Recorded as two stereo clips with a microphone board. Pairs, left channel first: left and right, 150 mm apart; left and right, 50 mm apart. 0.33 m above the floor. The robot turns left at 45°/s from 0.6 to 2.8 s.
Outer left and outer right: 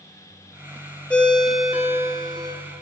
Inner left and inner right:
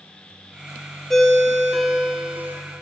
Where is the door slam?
I don't hear a door slam.